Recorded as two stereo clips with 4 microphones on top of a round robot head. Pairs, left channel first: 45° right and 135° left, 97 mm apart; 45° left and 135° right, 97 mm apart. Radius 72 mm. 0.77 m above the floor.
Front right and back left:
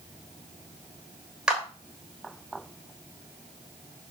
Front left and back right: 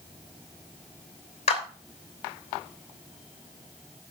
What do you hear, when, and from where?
1.5 s a clap: 50° left, 3 m